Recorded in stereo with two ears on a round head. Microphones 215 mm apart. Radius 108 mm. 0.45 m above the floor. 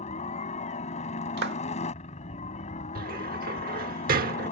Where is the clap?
45° right (ahead or behind).